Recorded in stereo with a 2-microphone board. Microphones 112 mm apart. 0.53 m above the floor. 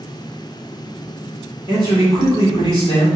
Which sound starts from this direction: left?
A man speaking, at 1.7 s.